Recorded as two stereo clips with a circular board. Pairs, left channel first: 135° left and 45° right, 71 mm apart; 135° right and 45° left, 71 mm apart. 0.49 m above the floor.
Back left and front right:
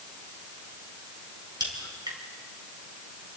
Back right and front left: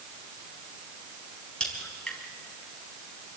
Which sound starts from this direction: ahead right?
A crack, at 1.6 s.